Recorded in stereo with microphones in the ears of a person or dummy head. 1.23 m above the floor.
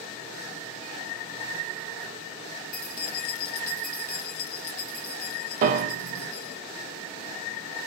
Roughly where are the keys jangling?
Left.